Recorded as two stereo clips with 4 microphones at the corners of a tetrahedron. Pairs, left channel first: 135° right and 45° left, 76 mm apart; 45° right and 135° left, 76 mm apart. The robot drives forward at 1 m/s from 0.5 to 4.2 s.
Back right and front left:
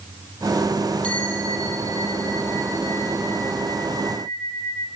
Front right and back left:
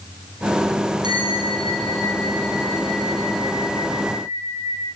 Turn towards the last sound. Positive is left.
turn(degrees=165)